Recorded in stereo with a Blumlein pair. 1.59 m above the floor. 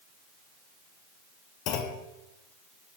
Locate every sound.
1.7 s a clunk: 40° left, 0.8 m